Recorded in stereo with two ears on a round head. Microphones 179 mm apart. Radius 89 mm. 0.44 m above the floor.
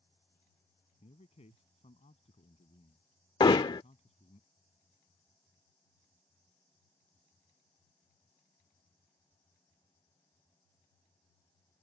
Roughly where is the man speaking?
Left.